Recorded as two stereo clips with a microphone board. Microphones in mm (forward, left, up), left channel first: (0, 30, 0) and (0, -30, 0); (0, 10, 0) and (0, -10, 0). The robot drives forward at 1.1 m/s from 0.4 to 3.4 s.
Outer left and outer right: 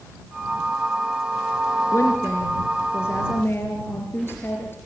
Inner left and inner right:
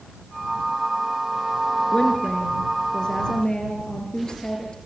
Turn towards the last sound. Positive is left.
turn(degrees=40)  # may be behind; listen again after turning